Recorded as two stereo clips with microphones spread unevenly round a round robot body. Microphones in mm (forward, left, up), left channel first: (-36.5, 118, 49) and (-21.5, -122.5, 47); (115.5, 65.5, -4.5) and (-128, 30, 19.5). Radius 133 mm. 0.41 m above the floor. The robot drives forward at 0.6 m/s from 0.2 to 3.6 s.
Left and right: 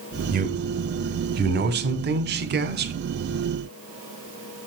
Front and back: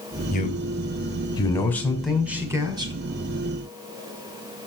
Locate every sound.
0.3 s a man speaking: 40° right, 2 m; by 2.9 s 100° right, 1.8 m